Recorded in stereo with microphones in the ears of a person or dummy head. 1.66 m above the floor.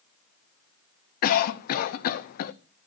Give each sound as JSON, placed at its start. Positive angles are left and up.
{"t": 1.2, "sound": "a cough", "side_deg": 50, "distance_m": 0.6}